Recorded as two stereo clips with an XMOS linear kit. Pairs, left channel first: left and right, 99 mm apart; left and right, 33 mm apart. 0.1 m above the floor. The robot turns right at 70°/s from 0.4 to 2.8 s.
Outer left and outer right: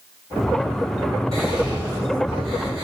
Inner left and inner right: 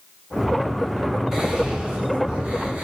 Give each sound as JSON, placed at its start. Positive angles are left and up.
{"t": 1.3, "sound": "whispering", "side_deg": 0, "distance_m": 2.0}